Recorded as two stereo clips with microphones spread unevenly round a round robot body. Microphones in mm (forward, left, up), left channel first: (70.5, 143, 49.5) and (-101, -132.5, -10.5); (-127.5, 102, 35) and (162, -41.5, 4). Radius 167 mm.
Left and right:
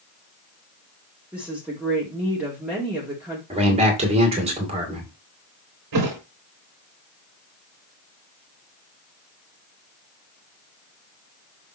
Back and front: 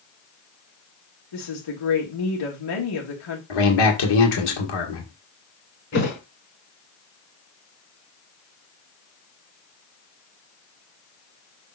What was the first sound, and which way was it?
A woman speaking, 155° left.